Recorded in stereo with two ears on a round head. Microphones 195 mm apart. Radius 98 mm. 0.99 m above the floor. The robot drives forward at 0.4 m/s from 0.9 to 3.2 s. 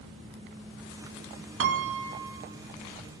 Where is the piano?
55° right (ahead or behind), 0.5 m; by 2.4 s 60° right (ahead or behind), 0.5 m.